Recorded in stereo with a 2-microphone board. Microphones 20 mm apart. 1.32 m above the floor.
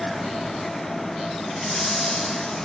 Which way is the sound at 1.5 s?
45° left (ahead or behind).